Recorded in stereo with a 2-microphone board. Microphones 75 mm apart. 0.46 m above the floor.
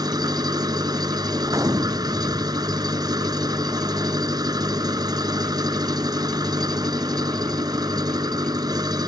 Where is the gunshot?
50° right (ahead or behind).